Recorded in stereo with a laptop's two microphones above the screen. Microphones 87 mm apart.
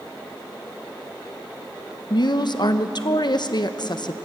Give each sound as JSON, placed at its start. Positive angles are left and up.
{"t": 2.1, "sound": "a woman speaking", "side_deg": 55, "distance_m": 1.0}